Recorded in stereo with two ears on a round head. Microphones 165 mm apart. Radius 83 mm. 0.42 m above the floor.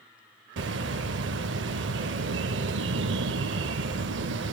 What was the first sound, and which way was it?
A bird, 70° right (ahead or behind).